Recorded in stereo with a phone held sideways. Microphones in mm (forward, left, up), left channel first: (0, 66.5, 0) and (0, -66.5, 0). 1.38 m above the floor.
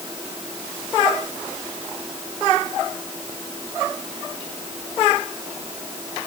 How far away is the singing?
I don't hear singing.